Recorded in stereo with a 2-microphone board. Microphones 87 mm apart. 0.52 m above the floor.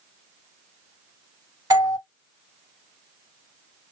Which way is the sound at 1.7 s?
45° right (ahead or behind).